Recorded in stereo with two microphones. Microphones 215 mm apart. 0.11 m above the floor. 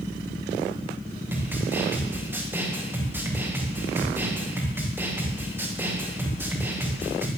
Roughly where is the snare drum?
Centre.